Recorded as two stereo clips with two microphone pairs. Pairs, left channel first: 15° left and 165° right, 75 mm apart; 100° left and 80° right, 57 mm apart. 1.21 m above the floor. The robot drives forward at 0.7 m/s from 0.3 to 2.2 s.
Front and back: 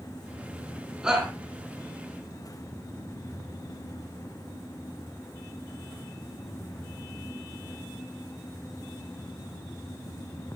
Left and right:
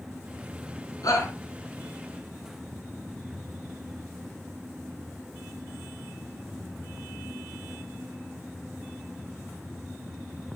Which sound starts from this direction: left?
A shout, at 1.0 s.